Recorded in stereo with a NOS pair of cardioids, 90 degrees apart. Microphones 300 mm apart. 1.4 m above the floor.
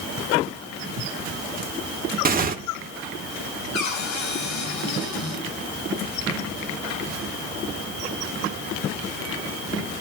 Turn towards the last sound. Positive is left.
turn(degrees=65)